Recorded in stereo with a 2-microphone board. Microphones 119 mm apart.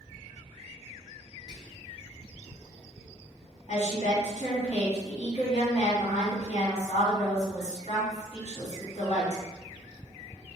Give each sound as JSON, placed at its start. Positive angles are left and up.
{"t": 1.5, "sound": "whispering", "side_deg": -30, "distance_m": 1.1}
{"t": 3.7, "sound": "a woman speaking", "side_deg": 60, "distance_m": 1.9}